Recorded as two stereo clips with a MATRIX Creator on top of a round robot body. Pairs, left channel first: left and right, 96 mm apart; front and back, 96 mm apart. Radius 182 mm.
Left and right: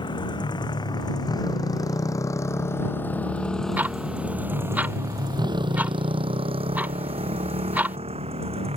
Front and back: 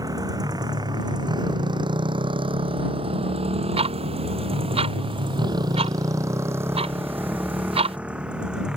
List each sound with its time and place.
0.0 s a motorcycle: 130° left; by 8.8 s 100° right
3.8 s ticking: 165° right